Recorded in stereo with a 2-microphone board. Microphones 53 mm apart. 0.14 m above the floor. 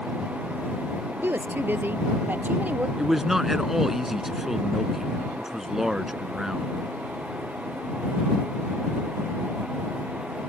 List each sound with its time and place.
1.2 s a woman speaking: 45° right (ahead or behind); by 2.9 s 30° right (ahead or behind)
3.0 s a man speaking: 5° right (ahead or behind)